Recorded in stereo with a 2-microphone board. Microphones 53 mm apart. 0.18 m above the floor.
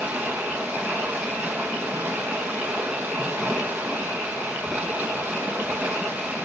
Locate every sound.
0.0 s running water: 25° right (ahead or behind), 4.5 m